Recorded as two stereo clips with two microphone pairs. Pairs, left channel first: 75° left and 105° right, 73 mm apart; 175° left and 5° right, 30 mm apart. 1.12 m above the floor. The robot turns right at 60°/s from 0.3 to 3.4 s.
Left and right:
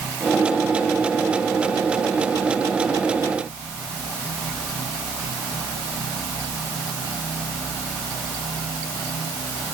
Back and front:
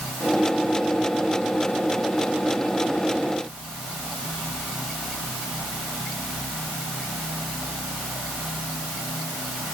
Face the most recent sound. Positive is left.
No sound to turn to.